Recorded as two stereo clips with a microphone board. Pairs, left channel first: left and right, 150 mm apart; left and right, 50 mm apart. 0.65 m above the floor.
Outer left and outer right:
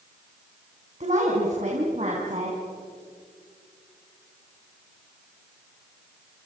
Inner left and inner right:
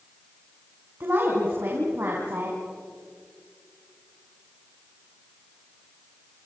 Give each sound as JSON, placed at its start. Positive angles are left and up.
{"t": 1.0, "sound": "a woman speaking", "side_deg": -50, "distance_m": 5.0}